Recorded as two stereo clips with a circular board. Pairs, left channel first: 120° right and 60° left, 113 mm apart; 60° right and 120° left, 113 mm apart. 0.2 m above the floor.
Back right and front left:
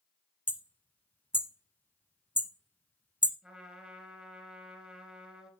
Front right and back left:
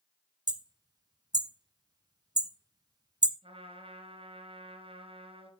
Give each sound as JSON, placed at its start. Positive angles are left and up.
{"t": 0.5, "sound": "hammering", "azimuth_deg": 165, "distance_m": 0.6}
{"t": 3.4, "sound": "a trumpet", "azimuth_deg": 140, "distance_m": 2.5}